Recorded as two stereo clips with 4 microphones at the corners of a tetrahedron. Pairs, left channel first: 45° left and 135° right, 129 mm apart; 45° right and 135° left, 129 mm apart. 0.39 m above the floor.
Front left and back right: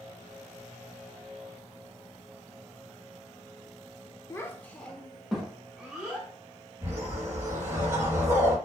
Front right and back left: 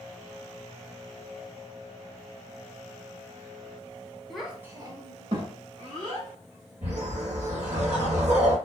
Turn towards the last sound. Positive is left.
turn(degrees=160)